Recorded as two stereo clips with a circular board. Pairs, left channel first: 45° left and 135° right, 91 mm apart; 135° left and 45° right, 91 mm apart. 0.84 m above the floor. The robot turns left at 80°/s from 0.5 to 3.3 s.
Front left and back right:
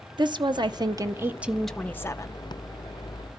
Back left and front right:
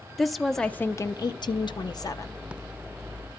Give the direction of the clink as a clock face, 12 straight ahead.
I don't hear a clink.